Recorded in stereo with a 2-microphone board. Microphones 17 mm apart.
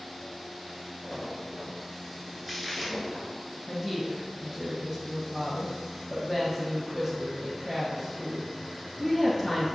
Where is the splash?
15° right (ahead or behind), 1.3 m.